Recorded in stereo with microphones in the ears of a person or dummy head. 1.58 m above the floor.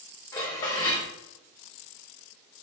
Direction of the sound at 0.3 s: 20° left (ahead or behind).